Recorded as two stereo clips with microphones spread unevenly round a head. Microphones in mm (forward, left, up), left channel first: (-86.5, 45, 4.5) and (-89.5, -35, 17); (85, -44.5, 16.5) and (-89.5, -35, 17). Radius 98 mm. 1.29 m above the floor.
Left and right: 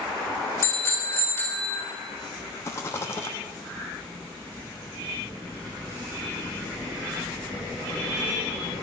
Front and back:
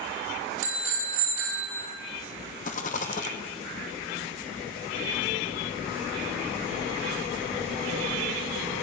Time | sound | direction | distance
0.6 | a bicycle bell | 140° left | 5.5 m
2.6 | a rattle | 20° left | 0.7 m